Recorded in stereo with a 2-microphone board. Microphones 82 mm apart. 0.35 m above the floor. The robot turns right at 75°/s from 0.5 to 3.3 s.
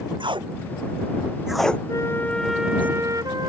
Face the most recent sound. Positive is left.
turn(degrees=-125)